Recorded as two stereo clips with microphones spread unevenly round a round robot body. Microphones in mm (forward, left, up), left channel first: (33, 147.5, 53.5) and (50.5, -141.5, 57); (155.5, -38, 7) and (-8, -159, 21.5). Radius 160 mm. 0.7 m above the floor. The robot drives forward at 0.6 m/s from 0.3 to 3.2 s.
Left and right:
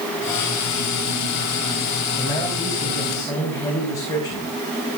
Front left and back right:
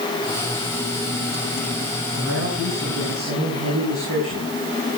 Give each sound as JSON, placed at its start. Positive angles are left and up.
{"t": 2.2, "sound": "a man speaking", "azimuth_deg": 170, "distance_m": 4.5}